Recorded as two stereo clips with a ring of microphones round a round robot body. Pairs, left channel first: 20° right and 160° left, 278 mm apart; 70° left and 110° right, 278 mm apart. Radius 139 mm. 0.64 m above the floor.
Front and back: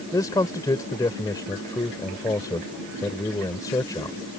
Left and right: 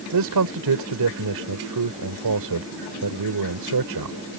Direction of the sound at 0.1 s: 100° right.